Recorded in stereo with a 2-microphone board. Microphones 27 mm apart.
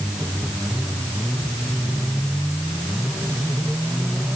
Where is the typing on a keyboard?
I don't hear typing on a keyboard.